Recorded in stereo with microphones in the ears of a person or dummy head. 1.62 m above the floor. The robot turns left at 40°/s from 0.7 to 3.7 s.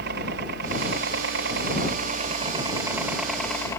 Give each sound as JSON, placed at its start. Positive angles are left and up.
{"t": 0.0, "sound": "a helicopter", "azimuth_deg": -70}